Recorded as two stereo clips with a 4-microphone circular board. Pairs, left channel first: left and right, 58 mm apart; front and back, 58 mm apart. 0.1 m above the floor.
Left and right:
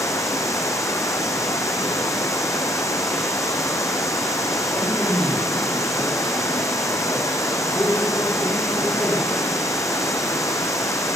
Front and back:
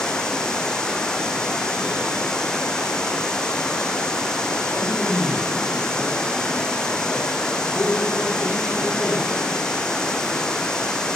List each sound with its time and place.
0.0 s running water: 80° left, 2.0 m
4.7 s a man speaking: 55° left, 9 m